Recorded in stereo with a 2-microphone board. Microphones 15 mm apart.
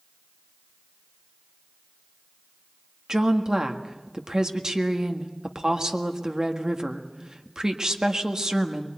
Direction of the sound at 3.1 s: 50° right (ahead or behind).